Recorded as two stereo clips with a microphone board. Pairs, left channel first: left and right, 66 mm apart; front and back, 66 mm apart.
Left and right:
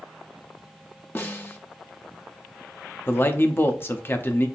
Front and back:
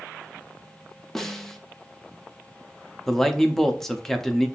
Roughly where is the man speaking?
Left.